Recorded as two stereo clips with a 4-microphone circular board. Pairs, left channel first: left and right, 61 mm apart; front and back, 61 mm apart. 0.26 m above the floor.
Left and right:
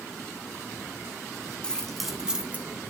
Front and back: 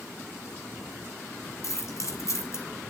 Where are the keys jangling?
15° left, 1.8 m; by 2.6 s 30° right, 1.8 m.